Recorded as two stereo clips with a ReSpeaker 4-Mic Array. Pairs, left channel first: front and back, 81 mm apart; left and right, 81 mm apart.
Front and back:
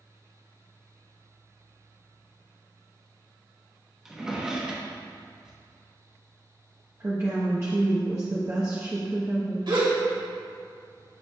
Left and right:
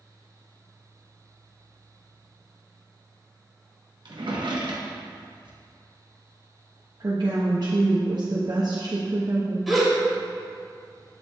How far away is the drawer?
About 1.0 m.